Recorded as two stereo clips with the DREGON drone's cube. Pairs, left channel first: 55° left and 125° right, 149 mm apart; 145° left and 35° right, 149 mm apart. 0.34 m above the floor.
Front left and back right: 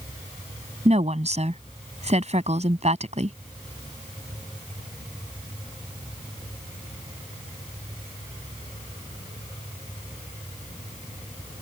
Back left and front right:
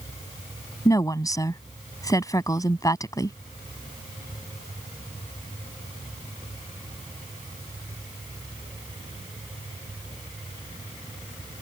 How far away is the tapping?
No tapping in this recording.